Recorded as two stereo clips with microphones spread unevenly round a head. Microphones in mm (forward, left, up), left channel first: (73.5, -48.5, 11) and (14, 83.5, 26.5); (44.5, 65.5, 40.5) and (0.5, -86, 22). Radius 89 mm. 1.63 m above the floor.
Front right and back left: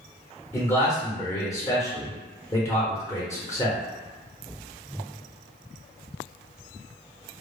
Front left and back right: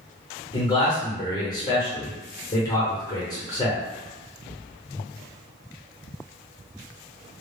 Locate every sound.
0.5 s a man speaking: 10° left, 0.8 m